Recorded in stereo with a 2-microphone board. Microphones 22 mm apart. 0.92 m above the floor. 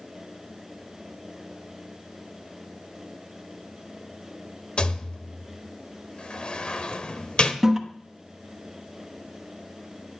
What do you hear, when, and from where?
4.8 s a rattle: 50° left (ahead or behind), 1.1 m
7.6 s a toilet flushing: 20° right (ahead or behind), 1.0 m